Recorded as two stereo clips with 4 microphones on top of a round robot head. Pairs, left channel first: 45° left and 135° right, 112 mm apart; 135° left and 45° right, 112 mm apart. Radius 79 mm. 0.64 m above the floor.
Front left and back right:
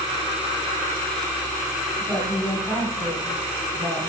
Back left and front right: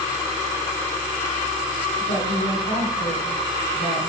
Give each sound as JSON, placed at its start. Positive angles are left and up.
{"t": 2.0, "sound": "a woman speaking", "azimuth_deg": 145, "distance_m": 6.0}